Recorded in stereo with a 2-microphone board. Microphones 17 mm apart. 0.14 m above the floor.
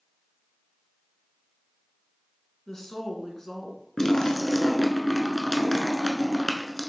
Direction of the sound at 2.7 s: 30° left (ahead or behind).